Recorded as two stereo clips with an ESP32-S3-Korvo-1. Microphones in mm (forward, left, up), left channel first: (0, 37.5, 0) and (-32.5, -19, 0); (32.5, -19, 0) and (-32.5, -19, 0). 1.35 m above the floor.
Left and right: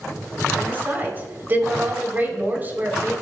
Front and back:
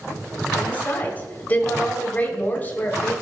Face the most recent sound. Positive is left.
turn(degrees=-60)